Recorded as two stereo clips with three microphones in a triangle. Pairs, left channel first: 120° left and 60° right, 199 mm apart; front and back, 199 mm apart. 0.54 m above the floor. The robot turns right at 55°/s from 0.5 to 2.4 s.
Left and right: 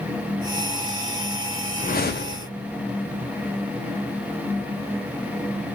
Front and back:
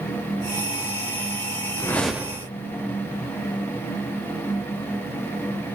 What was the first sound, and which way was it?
A whoosh, 75° left.